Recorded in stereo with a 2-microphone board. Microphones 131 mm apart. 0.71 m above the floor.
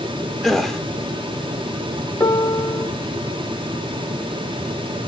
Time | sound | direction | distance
0.4 | a gasp | centre (ahead or behind) | 0.9 m
2.2 | a piano | 25° left (ahead or behind) | 1.3 m